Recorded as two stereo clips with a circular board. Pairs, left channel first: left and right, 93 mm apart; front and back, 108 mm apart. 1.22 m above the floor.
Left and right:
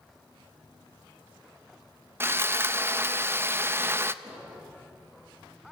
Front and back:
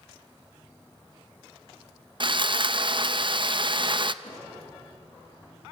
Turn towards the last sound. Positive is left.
turn(degrees=-25)